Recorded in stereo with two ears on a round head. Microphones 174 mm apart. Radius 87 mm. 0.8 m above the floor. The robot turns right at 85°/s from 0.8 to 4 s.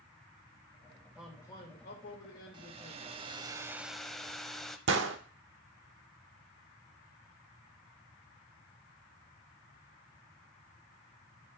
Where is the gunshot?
70° right (ahead or behind), 1.1 m.